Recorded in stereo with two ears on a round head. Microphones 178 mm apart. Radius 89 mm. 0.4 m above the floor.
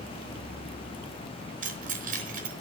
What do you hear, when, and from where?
1.6 s keys jangling: 40° right (ahead or behind), 4 m